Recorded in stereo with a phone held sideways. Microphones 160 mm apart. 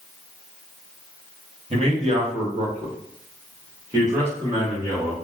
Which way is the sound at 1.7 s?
40° right (ahead or behind).